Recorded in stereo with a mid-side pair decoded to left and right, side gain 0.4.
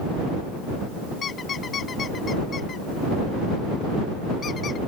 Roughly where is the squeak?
Ahead left.